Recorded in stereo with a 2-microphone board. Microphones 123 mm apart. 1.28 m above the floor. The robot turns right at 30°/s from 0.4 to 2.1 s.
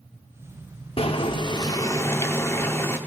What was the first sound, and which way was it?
Boiling, 125° left.